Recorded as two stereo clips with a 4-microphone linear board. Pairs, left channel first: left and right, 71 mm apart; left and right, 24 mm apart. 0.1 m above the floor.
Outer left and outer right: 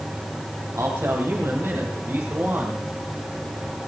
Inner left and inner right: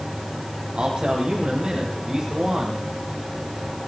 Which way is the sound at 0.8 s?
45° right (ahead or behind).